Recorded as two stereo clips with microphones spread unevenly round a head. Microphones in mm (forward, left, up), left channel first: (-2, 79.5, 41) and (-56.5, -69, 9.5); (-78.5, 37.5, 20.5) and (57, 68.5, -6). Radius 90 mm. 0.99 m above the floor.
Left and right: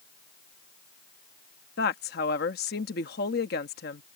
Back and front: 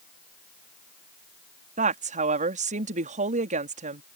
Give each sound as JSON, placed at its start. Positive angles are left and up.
{"t": 1.8, "sound": "a woman speaking", "azimuth_deg": 35}